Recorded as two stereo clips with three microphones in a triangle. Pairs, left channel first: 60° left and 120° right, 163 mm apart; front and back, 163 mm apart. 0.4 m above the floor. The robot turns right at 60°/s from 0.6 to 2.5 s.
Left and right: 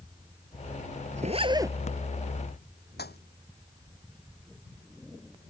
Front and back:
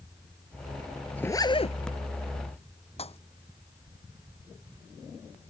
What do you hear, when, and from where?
1.2 s a zipper: 80° right; by 1.8 s 45° right
3.0 s a pop: 55° left